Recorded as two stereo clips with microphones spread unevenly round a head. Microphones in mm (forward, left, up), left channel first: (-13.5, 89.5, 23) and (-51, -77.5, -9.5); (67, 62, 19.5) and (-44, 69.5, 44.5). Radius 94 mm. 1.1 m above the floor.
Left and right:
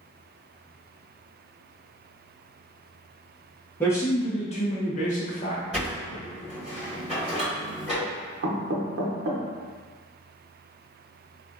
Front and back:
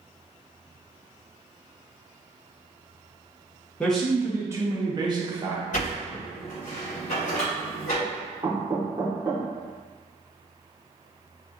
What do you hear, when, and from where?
3.8 s a man speaking: 15° right, 0.6 m; by 5.6 s 125° left, 1.2 m
5.7 s a sliding door: 15° right, 1.4 m
8.4 s knocking: 115° right, 0.7 m